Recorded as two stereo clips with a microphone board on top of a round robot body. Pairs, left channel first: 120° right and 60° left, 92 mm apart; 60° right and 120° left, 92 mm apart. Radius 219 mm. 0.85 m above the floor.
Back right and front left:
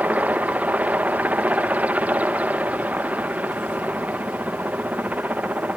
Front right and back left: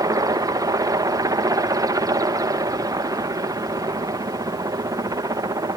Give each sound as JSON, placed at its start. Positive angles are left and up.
{"t": 0.0, "sound": "a helicopter", "azimuth_deg": 125}